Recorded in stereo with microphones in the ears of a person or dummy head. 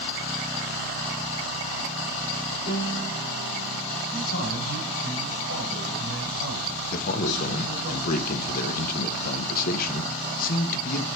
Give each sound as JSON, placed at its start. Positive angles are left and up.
{"t": 2.7, "sound": "a piano", "side_deg": 65, "distance_m": 4.0}
{"t": 4.1, "sound": "a man speaking", "side_deg": 85, "distance_m": 8.5}
{"t": 6.9, "sound": "a man speaking", "side_deg": 50, "distance_m": 1.3}